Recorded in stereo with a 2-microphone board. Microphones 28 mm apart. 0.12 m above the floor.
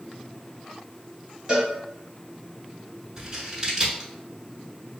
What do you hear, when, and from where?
1.5 s a cowbell: 30° right (ahead or behind), 1.2 m
3.2 s scissors: 20° right (ahead or behind), 0.8 m